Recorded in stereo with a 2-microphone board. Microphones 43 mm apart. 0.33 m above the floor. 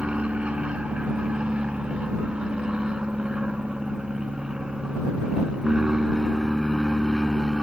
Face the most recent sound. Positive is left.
turn(degrees=-10)  # may be behind; listen again after turning